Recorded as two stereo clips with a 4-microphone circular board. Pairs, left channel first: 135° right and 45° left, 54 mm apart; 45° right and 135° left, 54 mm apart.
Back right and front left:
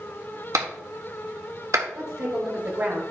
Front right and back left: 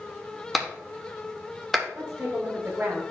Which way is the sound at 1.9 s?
75° left.